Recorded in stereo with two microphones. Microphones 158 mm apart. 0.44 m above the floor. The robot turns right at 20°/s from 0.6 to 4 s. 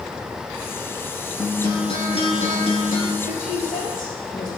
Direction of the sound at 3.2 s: 60° left (ahead or behind).